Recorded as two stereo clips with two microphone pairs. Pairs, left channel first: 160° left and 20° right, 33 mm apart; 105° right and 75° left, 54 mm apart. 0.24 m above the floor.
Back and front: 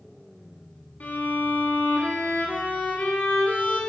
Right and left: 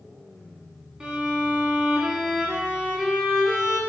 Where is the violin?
145° left, 1.0 m.